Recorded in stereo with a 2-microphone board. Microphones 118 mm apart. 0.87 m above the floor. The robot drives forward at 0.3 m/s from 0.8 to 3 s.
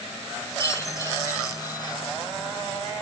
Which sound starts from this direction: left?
A chime, at 0.6 s.